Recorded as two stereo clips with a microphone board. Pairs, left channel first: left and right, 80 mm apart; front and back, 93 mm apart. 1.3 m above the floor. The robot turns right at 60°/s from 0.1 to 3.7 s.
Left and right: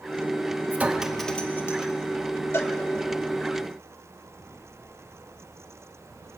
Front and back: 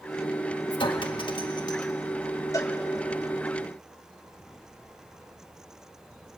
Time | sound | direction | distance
0.7 | a clink | 25° right | 1.2 m
2.5 | a cowbell | 35° left | 1.3 m